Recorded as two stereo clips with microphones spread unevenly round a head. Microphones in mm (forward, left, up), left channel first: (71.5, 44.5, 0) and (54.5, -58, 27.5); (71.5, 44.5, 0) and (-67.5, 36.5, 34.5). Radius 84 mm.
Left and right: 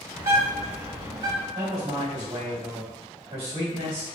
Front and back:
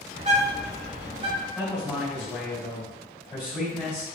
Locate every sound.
0.1 s a bird: 145° right, 2.0 m
1.6 s a man speaking: 90° right, 1.4 m